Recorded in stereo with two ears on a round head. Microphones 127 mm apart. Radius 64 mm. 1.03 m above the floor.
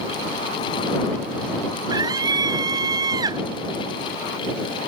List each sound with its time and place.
1.9 s a scream: 25° right (ahead or behind)